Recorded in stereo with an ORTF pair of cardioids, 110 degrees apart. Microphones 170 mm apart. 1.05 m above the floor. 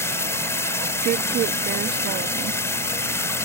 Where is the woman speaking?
65° right.